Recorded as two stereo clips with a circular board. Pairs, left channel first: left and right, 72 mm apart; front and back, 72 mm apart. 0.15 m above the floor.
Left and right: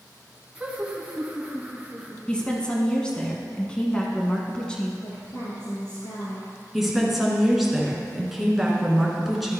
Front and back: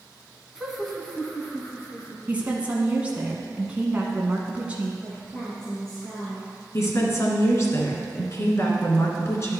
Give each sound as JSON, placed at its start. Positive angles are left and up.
{"t": 0.6, "sound": "laughter", "azimuth_deg": -115, "distance_m": 1.1}
{"t": 2.3, "sound": "a woman speaking", "azimuth_deg": 145, "distance_m": 1.1}
{"t": 5.0, "sound": "a woman speaking", "azimuth_deg": 80, "distance_m": 2.5}
{"t": 6.7, "sound": "a woman speaking", "azimuth_deg": -5, "distance_m": 1.6}